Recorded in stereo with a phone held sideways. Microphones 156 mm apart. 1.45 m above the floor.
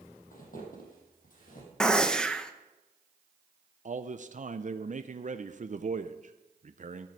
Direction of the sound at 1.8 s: 5° left (ahead or behind).